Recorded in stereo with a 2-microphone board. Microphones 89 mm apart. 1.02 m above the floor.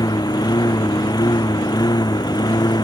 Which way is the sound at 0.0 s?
45° left (ahead or behind).